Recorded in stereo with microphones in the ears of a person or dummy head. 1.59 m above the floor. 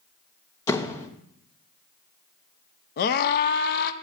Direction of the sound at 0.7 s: 10° left (ahead or behind).